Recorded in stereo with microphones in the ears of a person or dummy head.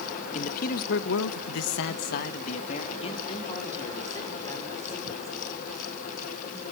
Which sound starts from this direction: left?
A man speaking, at 0.3 s.